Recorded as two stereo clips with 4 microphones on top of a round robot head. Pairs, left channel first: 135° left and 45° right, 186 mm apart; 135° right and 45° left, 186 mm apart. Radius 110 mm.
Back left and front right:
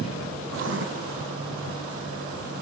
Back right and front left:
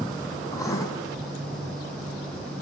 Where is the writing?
60° right, 3.5 m.